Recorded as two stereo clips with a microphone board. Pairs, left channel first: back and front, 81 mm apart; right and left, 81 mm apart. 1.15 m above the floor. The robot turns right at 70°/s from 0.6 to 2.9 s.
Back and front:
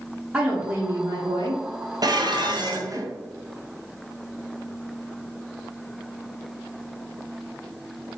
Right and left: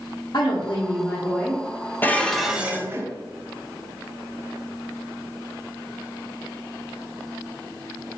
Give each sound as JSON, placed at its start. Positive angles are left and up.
{"t": 0.3, "sound": "a woman speaking", "azimuth_deg": -65, "distance_m": 0.9}
{"t": 2.0, "sound": "dishes clattering", "azimuth_deg": -25, "distance_m": 0.5}